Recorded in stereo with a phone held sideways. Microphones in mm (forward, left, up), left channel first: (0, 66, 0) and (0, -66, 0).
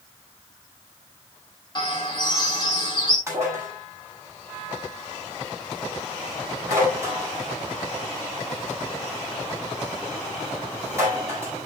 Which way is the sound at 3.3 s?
20° right (ahead or behind).